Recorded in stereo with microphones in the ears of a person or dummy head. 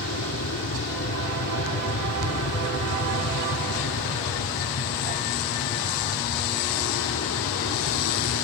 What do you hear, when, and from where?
0.0 s an aircraft: 75° left (ahead or behind); by 8.4 s 70° left (ahead or behind)